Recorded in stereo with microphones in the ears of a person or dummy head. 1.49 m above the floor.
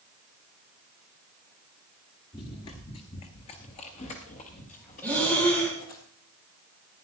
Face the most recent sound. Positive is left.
turn(degrees=5)  # may be behind; listen again after turning